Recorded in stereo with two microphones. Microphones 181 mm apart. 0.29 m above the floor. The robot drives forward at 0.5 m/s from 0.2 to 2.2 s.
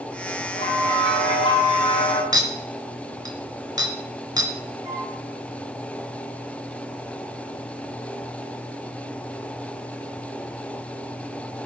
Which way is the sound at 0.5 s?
25° left (ahead or behind).